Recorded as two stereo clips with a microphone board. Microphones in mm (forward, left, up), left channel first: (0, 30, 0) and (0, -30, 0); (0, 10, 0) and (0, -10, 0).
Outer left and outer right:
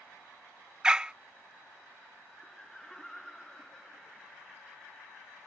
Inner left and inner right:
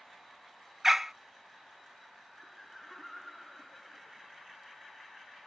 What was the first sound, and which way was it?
A dog barking, 15° right (ahead or behind).